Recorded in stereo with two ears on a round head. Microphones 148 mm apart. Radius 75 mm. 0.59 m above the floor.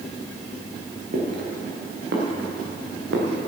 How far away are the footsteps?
About 4 m.